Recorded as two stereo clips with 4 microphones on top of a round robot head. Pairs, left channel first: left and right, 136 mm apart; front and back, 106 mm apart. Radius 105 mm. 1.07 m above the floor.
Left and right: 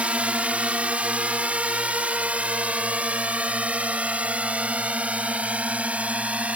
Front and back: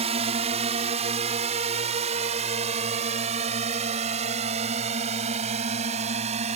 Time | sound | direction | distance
0.0 | a drone | 170° right | ?